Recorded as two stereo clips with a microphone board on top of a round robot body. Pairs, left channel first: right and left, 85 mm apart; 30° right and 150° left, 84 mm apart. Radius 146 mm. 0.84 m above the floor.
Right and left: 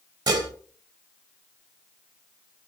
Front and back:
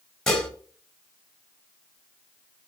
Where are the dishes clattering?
55° left, 1.8 m.